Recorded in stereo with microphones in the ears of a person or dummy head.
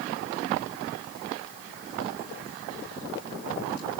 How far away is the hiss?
No hiss in this recording.